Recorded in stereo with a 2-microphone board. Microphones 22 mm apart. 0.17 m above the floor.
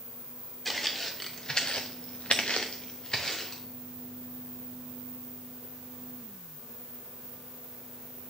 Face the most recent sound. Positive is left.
turn(degrees=35)  # may be behind; listen again after turning